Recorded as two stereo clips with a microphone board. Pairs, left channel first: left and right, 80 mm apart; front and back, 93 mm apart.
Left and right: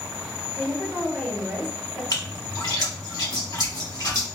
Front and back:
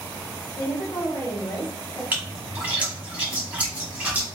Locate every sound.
0.6 s a woman speaking: 15° left, 1.4 m; by 2.0 s 45° right, 1.4 m
2.1 s a splash: 110° left, 1.3 m